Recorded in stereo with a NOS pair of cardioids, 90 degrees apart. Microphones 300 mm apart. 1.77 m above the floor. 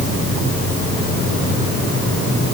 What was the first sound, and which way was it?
Only background noise.